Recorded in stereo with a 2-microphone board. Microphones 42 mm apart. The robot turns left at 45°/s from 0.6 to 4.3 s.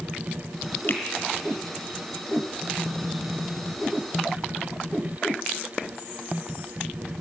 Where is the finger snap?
50° left (ahead or behind), 2 m; by 1.0 s 45° left (ahead or behind), 2 m.